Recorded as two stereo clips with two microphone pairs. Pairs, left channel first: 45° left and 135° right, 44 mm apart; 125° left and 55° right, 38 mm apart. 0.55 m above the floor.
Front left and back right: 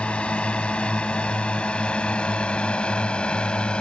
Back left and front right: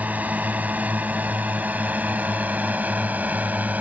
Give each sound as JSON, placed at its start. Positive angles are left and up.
{"t": 0.0, "sound": "a drone", "azimuth_deg": -15}